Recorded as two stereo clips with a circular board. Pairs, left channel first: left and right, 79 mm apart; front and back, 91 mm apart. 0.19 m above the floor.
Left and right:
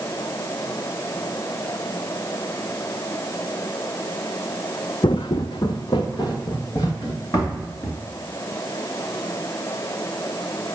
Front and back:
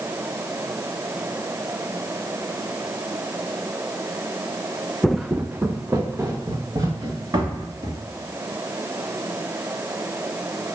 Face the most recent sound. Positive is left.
turn(degrees=130)